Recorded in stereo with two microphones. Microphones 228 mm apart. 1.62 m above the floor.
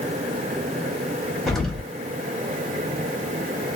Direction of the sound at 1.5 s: Centre (ahead or behind).